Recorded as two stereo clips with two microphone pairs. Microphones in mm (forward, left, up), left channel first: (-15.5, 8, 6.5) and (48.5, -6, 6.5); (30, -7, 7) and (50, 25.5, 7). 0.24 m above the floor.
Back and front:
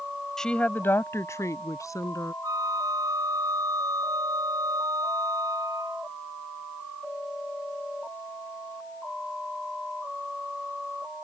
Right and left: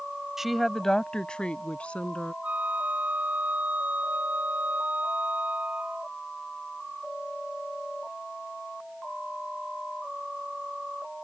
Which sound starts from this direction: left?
A woman speaking, at 0.4 s.